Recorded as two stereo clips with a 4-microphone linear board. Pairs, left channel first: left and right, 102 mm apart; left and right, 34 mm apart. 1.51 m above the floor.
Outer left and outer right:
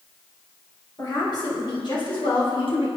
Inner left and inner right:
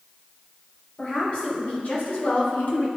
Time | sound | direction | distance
1.0 | a woman speaking | 40° left (ahead or behind) | 1.9 m